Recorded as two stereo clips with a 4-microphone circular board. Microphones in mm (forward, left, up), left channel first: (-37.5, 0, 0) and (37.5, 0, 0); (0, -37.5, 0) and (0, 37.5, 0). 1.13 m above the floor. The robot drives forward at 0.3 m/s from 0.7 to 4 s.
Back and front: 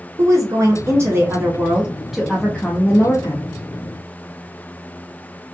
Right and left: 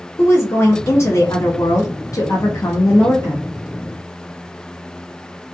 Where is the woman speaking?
35° right, 0.7 m; by 3.5 s 140° right, 0.6 m.